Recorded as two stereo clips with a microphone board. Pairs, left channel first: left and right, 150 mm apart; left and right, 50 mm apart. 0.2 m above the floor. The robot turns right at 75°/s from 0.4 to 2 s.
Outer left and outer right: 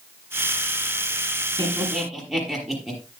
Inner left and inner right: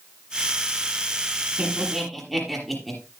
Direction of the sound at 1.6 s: 35° right (ahead or behind).